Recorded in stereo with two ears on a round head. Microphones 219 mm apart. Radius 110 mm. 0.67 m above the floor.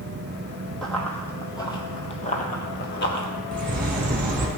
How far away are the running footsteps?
About 1.5 m.